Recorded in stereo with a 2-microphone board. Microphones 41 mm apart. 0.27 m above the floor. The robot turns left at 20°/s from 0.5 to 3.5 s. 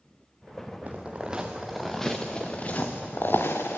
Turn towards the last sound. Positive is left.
turn(degrees=65)  # may be behind; listen again after turning